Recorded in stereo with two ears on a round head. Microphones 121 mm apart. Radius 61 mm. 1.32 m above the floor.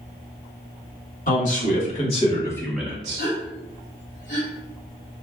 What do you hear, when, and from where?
1.3 s a man speaking: 65° left (ahead or behind), 1.6 m; by 3.2 s 40° right (ahead or behind), 0.7 m
3.2 s a gasp: 65° left (ahead or behind), 1.7 m